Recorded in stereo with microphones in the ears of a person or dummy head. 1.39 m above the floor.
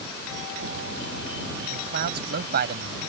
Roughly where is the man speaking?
Right.